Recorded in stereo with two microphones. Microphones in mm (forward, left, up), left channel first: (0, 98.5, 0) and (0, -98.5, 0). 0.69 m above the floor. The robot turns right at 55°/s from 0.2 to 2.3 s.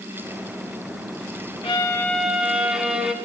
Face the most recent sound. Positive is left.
turn(degrees=-175)